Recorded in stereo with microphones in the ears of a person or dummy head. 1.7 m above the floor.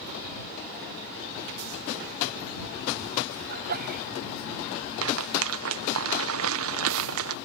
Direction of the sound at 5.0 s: 75° right (ahead or behind).